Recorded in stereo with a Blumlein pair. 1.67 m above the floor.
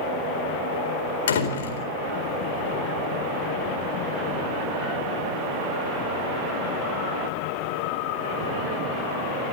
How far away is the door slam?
About 4 m.